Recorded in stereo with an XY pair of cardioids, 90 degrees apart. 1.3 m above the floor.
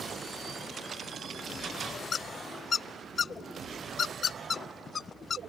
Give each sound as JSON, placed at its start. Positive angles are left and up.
{"t": 2.1, "sound": "a squeak", "azimuth_deg": 55}